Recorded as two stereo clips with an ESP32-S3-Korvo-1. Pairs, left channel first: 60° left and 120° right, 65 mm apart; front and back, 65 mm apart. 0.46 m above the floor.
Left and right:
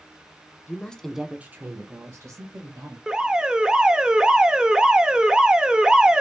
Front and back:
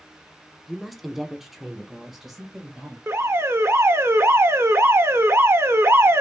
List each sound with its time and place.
0.7 s a woman speaking: 85° left, 0.8 m; by 3.0 s 95° right, 1.9 m
3.1 s an alarm: 170° left, 0.6 m